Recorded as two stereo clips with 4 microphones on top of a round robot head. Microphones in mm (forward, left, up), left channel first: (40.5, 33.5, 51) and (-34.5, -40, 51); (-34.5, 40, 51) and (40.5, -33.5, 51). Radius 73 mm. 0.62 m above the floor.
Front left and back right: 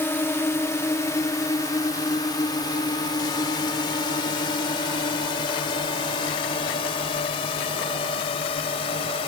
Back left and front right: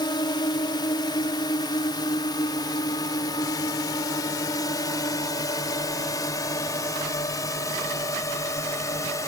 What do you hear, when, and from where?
0.0 s a drone: 105° left; by 9.3 s 75° left